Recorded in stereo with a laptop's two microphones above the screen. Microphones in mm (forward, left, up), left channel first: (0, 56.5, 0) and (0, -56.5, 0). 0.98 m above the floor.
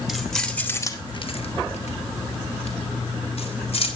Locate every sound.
0.1 s keys jangling: 5° right (ahead or behind), 1.8 m; by 3.9 s 60° left (ahead or behind), 4 m